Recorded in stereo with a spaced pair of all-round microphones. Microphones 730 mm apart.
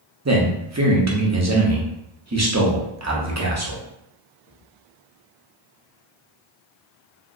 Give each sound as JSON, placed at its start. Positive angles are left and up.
{"t": 0.2, "sound": "a man speaking", "side_deg": -25, "distance_m": 0.8}